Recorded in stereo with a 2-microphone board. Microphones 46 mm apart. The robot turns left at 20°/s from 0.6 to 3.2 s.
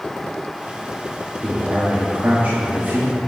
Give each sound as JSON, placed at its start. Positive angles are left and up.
{"t": 1.4, "sound": "a man speaking", "azimuth_deg": -65, "distance_m": 1.1}